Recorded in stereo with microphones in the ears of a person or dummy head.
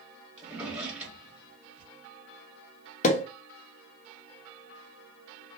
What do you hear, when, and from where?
0.4 s a drawer: 10° right (ahead or behind), 1.2 m
3.0 s a pop: 40° left (ahead or behind), 0.5 m